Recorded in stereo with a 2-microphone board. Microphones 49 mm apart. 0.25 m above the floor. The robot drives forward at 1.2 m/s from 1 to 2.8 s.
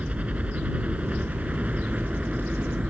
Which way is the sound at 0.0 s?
25° right (ahead or behind).